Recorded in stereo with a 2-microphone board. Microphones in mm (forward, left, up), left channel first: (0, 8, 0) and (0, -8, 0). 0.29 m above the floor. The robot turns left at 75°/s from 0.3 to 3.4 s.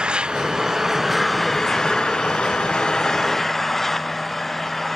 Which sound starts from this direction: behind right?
An engine running, at 0.0 s.